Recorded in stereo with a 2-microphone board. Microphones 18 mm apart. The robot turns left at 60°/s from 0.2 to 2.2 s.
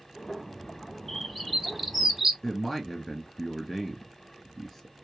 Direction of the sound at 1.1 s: 10° left (ahead or behind).